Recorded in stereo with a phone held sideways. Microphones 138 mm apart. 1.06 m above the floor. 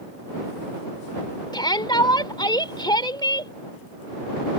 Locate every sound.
1.5 s a shout: 30° left (ahead or behind)